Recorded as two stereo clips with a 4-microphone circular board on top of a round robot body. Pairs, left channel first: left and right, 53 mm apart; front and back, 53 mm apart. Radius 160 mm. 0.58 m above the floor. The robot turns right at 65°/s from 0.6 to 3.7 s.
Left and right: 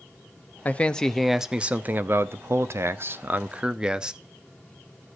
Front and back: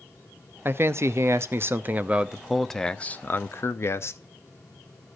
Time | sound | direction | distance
0.7 | a man speaking | 145° left | 0.9 m